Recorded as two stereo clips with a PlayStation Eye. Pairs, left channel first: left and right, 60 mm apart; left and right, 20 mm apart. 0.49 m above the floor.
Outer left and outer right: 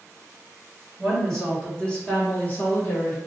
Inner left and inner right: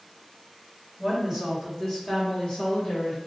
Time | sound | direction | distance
1.0 | a woman speaking | centre (ahead or behind) | 1.8 m